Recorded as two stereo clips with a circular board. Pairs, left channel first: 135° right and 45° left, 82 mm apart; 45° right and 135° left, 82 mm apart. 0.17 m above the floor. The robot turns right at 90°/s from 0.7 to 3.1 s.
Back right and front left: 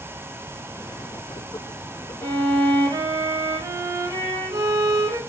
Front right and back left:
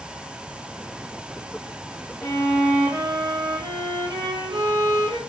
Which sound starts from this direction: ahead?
A violin, at 2.2 s.